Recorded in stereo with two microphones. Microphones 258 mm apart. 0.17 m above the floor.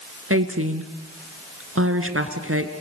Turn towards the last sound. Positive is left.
turn(degrees=-60)  # may be behind; listen again after turning